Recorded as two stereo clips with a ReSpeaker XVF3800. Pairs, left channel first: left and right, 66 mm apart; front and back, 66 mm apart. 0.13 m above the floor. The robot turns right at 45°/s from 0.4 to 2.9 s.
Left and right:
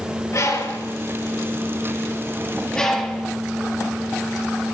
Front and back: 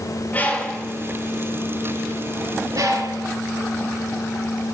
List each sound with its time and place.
0.3 s a bird: 60° left, 3.5 m; by 3.3 s 170° left, 3.5 m